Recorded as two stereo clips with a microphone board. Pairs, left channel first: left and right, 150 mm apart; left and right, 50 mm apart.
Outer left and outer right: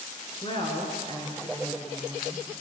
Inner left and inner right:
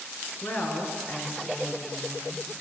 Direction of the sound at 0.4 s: 40° left (ahead or behind).